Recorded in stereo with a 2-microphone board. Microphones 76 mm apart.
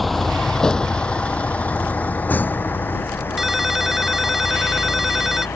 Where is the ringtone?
5° right (ahead or behind).